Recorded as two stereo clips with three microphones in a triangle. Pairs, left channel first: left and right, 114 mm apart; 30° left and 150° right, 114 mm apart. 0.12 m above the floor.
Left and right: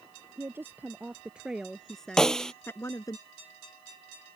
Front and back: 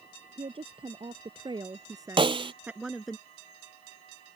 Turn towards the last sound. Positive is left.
turn(degrees=175)